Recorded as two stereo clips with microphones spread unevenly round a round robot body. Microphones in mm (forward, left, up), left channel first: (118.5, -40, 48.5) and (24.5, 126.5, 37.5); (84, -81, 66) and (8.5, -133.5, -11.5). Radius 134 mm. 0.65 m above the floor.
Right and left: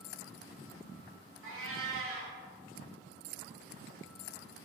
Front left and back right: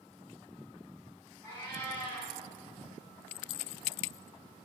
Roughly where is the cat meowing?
Behind left.